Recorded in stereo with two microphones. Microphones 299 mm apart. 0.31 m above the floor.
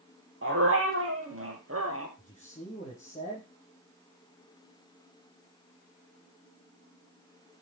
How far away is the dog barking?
About 3.5 m.